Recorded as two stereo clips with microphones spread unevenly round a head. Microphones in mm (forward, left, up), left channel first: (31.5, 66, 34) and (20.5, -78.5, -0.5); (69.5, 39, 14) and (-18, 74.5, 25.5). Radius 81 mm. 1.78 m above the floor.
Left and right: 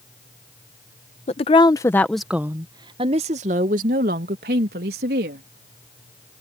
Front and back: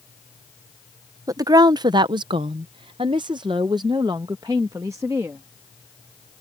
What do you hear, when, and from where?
1.3 s a woman speaking: 120° left; by 5.5 s 130° right